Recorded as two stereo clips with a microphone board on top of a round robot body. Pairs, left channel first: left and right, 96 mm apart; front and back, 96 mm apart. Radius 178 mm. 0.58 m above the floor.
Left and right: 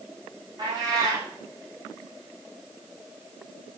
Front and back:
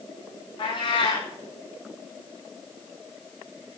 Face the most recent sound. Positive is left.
turn(degrees=-40)